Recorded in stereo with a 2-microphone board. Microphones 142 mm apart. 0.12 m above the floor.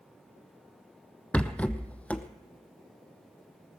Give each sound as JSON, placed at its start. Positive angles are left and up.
{"t": 1.3, "sound": "a rattle", "side_deg": 10, "distance_m": 0.8}